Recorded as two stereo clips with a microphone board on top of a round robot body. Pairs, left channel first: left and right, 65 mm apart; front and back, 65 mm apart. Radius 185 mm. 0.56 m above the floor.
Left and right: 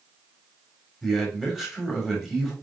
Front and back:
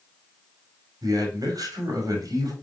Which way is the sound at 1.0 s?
175° right.